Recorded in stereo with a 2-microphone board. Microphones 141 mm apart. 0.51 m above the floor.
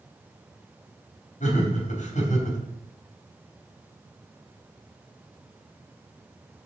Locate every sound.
1.4 s laughter: 65° left (ahead or behind), 3.5 m